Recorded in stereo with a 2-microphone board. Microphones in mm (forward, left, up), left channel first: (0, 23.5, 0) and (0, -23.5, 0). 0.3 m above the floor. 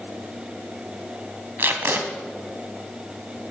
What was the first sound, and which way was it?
Tape being pulled, 45° right (ahead or behind).